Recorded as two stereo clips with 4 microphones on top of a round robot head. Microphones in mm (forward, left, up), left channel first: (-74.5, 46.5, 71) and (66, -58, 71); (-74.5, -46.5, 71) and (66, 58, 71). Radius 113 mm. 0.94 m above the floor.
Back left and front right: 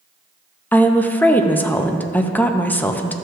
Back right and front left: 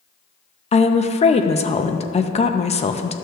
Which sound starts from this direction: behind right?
A woman speaking, at 0.7 s.